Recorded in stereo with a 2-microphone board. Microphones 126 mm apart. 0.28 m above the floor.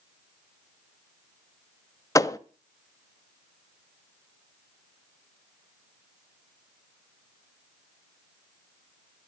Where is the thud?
25° left (ahead or behind), 0.5 m.